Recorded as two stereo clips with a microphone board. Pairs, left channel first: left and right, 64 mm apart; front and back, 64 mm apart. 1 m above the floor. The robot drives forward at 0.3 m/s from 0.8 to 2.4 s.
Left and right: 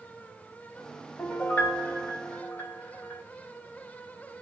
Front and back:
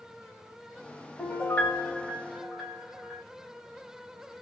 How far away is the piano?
About 1.0 m.